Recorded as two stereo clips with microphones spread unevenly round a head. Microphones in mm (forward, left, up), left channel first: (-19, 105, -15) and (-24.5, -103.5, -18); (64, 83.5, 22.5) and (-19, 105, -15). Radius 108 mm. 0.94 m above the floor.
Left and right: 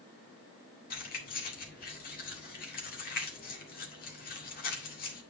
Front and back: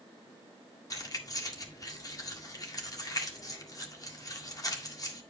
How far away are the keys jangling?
About 1.9 m.